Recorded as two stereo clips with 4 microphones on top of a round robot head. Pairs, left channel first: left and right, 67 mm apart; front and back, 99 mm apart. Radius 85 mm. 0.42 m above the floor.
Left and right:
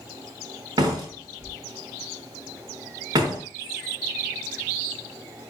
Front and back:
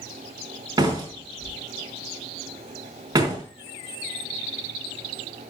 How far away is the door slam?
About 4.5 m.